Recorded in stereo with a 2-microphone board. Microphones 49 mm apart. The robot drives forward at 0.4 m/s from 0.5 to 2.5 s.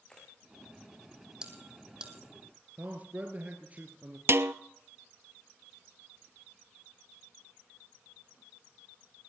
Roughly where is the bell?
Centre.